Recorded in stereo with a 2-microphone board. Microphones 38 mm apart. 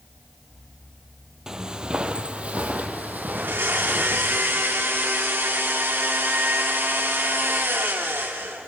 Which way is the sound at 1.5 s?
15° right (ahead or behind).